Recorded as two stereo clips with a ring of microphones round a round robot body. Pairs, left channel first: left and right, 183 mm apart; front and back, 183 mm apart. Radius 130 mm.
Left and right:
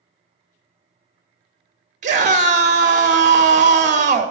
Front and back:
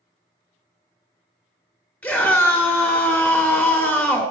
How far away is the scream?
About 1.0 m.